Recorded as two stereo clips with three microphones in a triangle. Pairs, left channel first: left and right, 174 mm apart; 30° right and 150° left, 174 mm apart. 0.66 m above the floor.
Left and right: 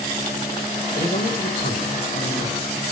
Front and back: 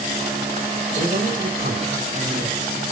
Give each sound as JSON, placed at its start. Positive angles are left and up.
{"t": 0.9, "sound": "a man speaking", "azimuth_deg": 115, "distance_m": 3.0}